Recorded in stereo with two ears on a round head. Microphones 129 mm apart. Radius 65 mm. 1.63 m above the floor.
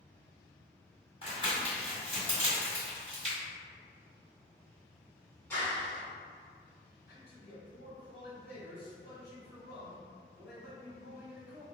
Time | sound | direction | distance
1.2 | crumpling | 40° left (ahead or behind) | 1.8 m
3.2 | a finger snap | 55° right (ahead or behind) | 0.5 m
5.5 | a clap | 20° left (ahead or behind) | 1.4 m
7.1 | a man speaking | 80° left | 1.4 m